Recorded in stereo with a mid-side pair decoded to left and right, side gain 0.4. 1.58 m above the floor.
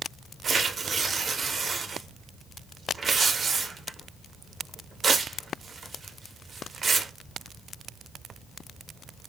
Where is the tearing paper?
45° right, 0.6 m.